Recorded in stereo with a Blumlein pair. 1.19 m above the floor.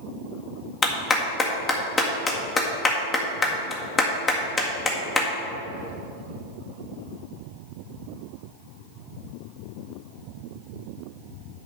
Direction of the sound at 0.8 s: 20° left.